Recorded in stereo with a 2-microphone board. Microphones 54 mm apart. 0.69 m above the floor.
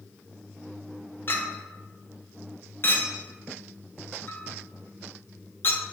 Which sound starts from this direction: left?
A clink, at 1.3 s.